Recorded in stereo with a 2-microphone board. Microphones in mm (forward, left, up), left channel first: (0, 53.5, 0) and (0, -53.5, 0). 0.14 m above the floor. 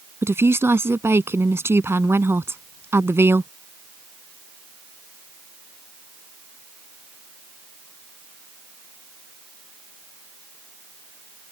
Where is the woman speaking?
25° right (ahead or behind).